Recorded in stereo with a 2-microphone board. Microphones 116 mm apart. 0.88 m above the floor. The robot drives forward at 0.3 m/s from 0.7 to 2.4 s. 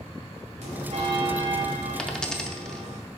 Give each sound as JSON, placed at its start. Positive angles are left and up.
{"t": 0.6, "sound": "a bell", "side_deg": -80, "distance_m": 2.5}
{"t": 2.0, "sound": "a dropped coin", "side_deg": 10, "distance_m": 0.5}